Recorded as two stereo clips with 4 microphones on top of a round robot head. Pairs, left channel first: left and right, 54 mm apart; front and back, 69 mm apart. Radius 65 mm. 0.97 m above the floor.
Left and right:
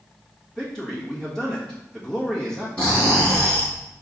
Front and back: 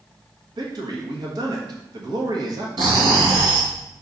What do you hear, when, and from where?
0.6 s a man speaking: 170° left, 1.4 m
2.8 s snoring: 165° left, 2 m